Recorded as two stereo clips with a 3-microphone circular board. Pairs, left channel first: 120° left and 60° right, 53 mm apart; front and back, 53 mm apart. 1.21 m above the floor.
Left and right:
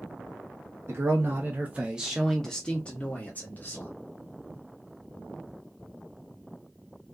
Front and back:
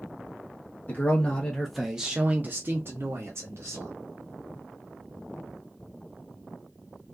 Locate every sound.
0.9 s a man speaking: 45° right, 0.7 m; by 3.9 s 165° left, 1.1 m